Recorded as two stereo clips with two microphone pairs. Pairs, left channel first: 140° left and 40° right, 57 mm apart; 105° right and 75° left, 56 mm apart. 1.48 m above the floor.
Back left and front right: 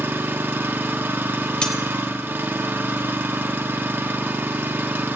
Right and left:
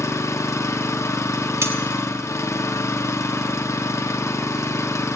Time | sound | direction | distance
0.0 | an engine running | 90° right | 1.0 m
1.6 | cutlery clinking | 65° left | 1.3 m